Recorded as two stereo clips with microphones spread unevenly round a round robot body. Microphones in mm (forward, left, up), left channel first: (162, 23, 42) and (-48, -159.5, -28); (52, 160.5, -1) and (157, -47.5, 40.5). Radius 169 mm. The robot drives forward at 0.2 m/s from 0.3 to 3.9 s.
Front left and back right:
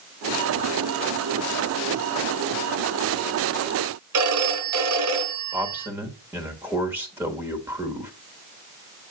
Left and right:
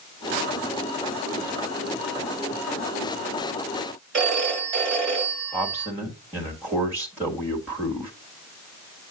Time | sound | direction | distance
4.1 | a phone ringing | 125° right | 1.4 m
5.5 | a man speaking | 160° right | 1.1 m